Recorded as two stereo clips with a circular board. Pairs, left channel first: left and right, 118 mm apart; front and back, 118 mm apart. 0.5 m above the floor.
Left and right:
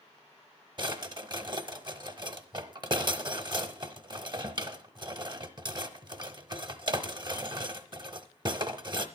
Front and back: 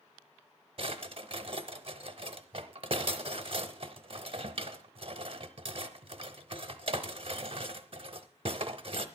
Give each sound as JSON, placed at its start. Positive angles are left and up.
{"t": 0.8, "sound": "a drawer", "azimuth_deg": -140, "distance_m": 0.8}